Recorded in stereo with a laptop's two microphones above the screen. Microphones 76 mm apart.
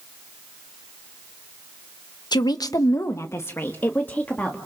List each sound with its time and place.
2.3 s a woman speaking: 65° left (ahead or behind), 0.9 m; by 4.6 s 15° left (ahead or behind), 1.9 m